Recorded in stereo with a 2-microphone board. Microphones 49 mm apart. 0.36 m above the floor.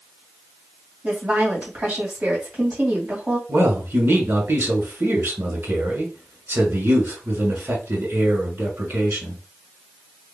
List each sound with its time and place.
1.0 s a woman speaking: 25° right (ahead or behind), 2.5 m
3.5 s a man speaking: 50° right (ahead or behind), 1.7 m